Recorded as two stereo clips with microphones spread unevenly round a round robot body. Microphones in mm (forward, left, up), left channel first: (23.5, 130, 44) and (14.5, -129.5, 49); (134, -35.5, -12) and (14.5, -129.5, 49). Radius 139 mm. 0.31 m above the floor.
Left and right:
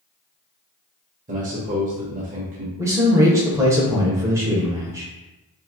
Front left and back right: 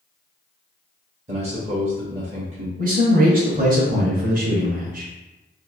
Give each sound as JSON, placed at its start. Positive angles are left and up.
{"t": 1.3, "sound": "a man speaking", "azimuth_deg": -95, "distance_m": 1.0}
{"t": 2.8, "sound": "a man speaking", "azimuth_deg": -165, "distance_m": 0.9}